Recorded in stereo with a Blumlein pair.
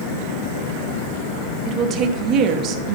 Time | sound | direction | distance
1.6 | a woman speaking | 35° right | 0.8 m